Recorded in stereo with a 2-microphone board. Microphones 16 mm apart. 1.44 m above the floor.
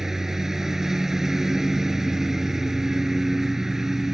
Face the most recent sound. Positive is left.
turn(degrees=-25)  # may be behind; listen again after turning